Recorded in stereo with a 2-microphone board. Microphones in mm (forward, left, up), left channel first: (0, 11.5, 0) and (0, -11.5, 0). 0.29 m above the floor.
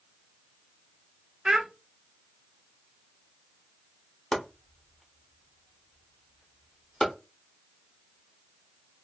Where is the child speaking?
35° right (ahead or behind), 0.6 m.